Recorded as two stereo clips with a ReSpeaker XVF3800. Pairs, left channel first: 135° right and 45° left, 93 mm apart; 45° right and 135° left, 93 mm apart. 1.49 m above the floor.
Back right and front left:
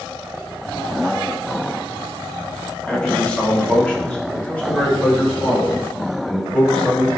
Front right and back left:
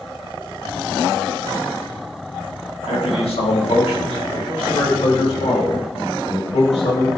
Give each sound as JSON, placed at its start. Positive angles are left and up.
{"t": 2.9, "sound": "a man speaking", "azimuth_deg": -55, "distance_m": 3.0}